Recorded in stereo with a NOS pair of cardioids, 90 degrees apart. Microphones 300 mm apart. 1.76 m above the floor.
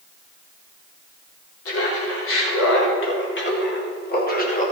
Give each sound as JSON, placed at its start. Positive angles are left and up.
{"t": 1.6, "sound": "laughter", "azimuth_deg": 50, "distance_m": 4.0}